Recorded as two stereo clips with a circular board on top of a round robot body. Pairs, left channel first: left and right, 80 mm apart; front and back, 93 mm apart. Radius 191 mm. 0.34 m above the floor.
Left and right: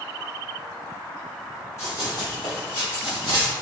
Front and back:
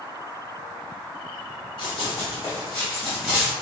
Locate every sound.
1.8 s running footsteps: 35° left, 1.0 m; by 3.5 s 100° left, 1.6 m